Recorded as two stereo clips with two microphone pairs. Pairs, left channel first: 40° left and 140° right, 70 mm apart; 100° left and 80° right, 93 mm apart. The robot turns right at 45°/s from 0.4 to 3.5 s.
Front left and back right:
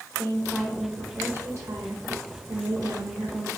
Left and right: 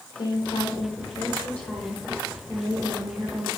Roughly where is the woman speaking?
Behind left.